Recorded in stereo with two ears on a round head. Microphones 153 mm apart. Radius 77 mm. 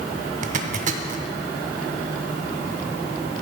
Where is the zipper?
45° right (ahead or behind), 0.7 m.